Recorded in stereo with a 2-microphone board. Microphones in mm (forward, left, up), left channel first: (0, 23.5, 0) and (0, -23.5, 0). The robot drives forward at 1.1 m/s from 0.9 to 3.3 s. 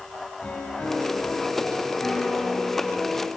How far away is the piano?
About 4 m.